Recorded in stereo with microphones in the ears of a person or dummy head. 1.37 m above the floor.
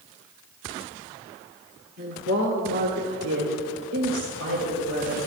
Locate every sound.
2.0 s a woman speaking: 50° right (ahead or behind), 1.2 m; by 5.2 s 80° right, 3 m